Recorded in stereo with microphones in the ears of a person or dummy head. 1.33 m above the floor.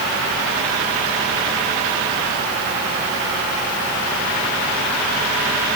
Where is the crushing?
No crushing in this recording.